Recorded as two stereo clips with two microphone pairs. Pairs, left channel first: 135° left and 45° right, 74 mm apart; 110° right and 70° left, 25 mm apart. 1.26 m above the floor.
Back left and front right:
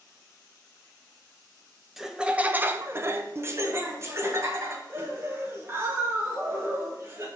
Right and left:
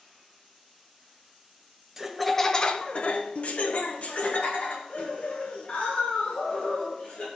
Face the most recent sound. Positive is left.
turn(degrees=-100)